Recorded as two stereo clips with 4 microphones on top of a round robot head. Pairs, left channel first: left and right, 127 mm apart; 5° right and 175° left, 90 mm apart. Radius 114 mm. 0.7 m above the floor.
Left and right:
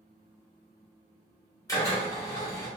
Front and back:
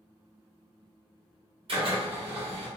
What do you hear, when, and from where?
1.7 s a drill: 155° left, 1.5 m